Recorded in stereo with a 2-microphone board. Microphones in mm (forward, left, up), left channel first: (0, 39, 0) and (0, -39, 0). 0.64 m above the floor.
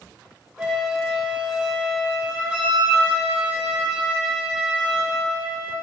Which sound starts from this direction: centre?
A flute, at 0.6 s.